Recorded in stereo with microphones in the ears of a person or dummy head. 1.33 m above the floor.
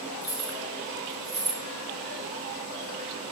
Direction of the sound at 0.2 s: 65° right (ahead or behind).